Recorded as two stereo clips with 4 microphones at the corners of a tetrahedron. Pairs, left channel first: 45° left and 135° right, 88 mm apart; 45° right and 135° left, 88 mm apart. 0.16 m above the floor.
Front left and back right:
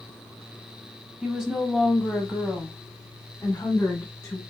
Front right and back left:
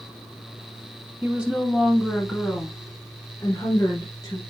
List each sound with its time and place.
1.2 s a woman speaking: 160° left, 1.1 m; by 4.4 s 20° right, 1.7 m